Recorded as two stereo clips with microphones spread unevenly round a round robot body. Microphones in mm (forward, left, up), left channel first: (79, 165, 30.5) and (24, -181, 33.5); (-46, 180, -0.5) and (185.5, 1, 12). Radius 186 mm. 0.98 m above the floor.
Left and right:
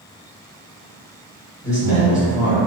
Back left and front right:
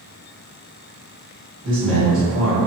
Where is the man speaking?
10° left, 1.6 m.